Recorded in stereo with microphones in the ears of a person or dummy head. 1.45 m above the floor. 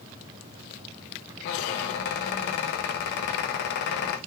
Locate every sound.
1.4 s a squeak: 55° left (ahead or behind), 0.7 m